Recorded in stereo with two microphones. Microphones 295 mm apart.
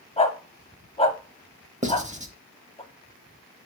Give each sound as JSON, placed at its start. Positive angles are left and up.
{"t": 0.2, "sound": "a dog barking", "side_deg": 20, "distance_m": 0.7}
{"t": 1.8, "sound": "writing", "side_deg": -25, "distance_m": 0.7}